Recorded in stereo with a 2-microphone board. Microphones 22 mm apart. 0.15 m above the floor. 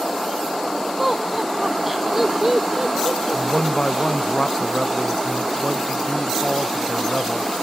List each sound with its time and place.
1.0 s laughter: 15° right (ahead or behind); by 4.3 s 40° right (ahead or behind)
3.3 s a man speaking: 50° left (ahead or behind)